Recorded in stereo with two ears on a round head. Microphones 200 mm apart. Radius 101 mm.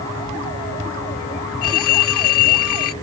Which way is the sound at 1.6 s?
75° left (ahead or behind).